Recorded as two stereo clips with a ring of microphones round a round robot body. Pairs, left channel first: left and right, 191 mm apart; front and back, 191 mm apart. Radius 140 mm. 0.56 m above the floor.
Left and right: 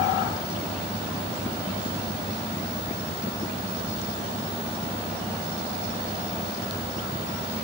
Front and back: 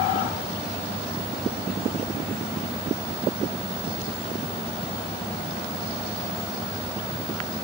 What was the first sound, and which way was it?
Only background noise.